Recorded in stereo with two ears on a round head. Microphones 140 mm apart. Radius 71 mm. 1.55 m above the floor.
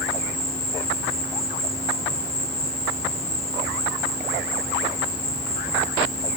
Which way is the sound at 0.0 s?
40° left (ahead or behind).